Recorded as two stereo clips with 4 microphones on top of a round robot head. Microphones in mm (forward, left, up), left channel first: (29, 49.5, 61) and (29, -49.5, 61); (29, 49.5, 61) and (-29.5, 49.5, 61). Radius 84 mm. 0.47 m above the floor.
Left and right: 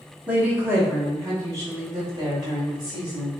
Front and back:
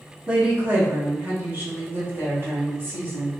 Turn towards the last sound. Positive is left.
turn(degrees=-135)